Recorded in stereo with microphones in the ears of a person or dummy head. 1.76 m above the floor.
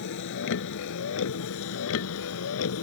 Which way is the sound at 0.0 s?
65° left (ahead or behind).